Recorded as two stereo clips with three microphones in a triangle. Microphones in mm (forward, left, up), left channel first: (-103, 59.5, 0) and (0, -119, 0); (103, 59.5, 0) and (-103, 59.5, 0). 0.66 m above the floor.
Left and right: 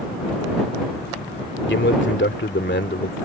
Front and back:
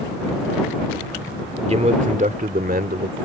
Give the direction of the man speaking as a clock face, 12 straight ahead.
8 o'clock.